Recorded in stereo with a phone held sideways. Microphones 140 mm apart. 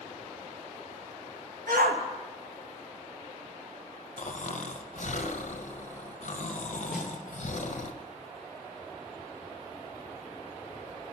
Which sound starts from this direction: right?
A shout, at 1.7 s.